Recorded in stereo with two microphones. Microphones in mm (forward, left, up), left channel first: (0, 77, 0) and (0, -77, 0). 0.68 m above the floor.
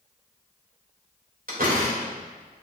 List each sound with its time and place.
1.5 s a door slam: 70° right (ahead or behind), 2.5 m